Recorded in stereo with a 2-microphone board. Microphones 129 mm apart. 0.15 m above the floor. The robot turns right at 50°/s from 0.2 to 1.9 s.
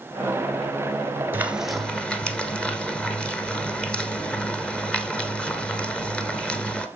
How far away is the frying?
About 1.3 m.